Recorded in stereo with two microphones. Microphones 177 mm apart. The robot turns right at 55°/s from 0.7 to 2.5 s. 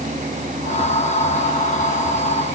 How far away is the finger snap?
No finger snap in this recording.